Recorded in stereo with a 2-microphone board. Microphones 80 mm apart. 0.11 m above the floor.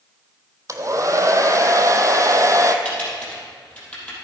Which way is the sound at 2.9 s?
15° left (ahead or behind).